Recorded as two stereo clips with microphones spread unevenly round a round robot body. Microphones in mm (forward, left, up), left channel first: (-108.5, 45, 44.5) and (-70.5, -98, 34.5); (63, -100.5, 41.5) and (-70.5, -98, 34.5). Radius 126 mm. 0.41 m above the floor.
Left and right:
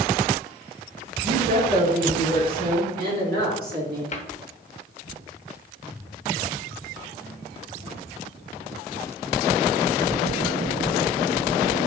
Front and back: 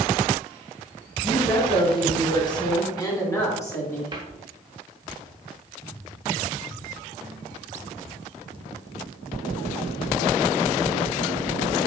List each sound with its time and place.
1.2 s a woman speaking: 45° right, 3 m; by 4.0 s 70° right, 3.5 m
4.1 s a cupboard door: 130° left, 1.1 m